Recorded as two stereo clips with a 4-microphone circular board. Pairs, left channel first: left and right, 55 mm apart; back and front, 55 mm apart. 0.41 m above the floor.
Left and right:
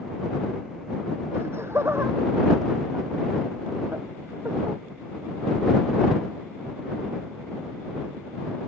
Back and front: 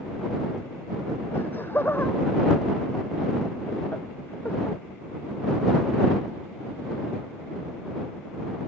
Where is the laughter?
130° right.